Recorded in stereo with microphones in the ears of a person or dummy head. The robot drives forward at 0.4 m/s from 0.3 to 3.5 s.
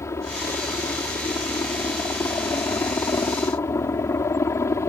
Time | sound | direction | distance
0.0 | a helicopter | 15° left (ahead or behind) | ?